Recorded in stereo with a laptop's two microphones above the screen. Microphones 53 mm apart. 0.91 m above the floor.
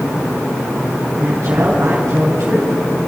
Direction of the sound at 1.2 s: 55° right (ahead or behind).